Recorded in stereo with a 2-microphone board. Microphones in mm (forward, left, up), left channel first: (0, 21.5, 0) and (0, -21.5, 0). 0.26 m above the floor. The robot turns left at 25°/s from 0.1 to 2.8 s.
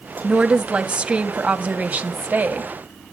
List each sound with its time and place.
0.2 s a woman speaking: 25° right, 1.2 m; by 2.7 s 85° right, 1.2 m